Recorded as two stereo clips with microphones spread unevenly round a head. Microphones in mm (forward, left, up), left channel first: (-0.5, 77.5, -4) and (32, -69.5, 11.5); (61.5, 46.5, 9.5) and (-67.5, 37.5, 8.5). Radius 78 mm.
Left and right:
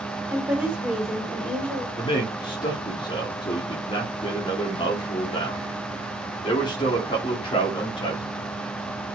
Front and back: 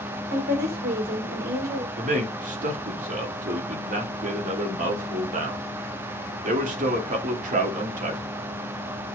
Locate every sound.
0.3 s a woman speaking: 155° right, 2.5 m; by 1.9 s 175° right, 2.5 m
2.0 s a man speaking: 165° left, 2 m